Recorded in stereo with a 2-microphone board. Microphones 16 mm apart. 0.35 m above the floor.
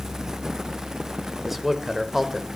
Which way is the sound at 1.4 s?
15° right (ahead or behind).